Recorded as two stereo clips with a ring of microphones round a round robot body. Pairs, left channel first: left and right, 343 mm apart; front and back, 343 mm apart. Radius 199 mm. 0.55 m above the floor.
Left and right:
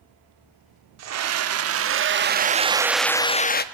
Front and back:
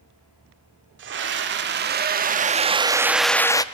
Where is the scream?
125° right, 1.5 m; by 3.6 s 70° left, 0.8 m.